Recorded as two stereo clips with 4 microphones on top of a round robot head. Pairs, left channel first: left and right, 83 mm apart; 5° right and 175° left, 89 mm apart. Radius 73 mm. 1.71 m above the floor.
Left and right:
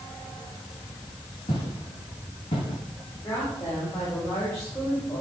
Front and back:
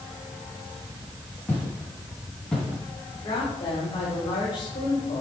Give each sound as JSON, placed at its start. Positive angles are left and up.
{"t": 1.5, "sound": "footsteps", "azimuth_deg": 60, "distance_m": 8.0}
{"t": 3.2, "sound": "a woman speaking", "azimuth_deg": 30, "distance_m": 7.5}